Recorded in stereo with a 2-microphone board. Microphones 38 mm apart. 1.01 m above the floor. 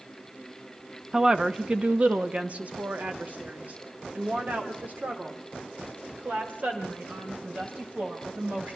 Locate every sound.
1.1 s a woman speaking: 15° right (ahead or behind), 1.0 m; by 8.8 s 55° right (ahead or behind), 6.5 m